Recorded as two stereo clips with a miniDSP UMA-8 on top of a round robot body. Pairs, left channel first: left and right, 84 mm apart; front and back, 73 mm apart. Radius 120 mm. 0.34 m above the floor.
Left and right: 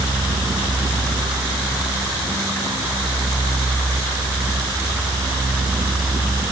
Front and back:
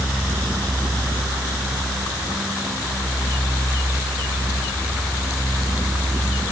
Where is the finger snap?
No finger snap in this recording.